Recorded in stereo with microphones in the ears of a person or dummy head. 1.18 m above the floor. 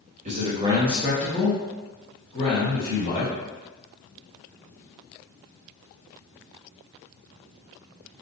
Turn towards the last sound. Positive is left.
turn(degrees=40)  # may be behind; listen again after turning